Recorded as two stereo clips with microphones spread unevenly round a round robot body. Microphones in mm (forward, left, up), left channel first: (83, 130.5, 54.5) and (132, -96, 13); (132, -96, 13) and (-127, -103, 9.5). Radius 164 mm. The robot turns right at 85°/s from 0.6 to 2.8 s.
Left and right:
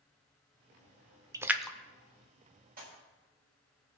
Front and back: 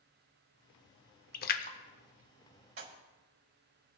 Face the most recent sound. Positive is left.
turn(degrees=-140)